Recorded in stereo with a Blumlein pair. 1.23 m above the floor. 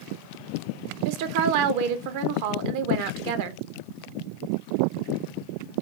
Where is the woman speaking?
50° right, 0.5 m.